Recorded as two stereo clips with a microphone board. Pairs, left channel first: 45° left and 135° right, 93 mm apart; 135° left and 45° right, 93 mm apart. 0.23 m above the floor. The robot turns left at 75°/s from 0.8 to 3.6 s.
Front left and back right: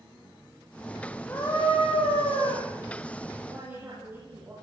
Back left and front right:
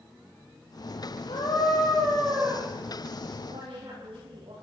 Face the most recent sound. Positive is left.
turn(degrees=-65)